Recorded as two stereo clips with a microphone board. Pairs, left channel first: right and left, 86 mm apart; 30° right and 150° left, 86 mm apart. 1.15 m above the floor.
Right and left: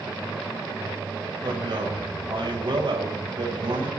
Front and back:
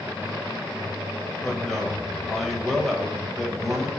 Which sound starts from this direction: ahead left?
A man speaking, at 1.4 s.